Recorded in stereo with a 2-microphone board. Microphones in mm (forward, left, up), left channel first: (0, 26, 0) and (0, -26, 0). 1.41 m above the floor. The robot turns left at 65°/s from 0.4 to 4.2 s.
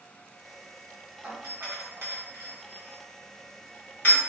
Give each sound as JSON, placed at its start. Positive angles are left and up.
{"t": 1.2, "sound": "a doorbell", "side_deg": -35, "distance_m": 1.0}